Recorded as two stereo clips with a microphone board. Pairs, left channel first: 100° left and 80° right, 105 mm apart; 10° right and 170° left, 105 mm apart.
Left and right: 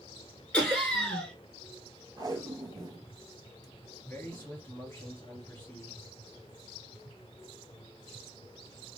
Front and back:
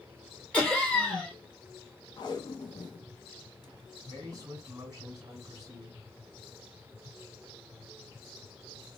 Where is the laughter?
45° left, 1.1 m.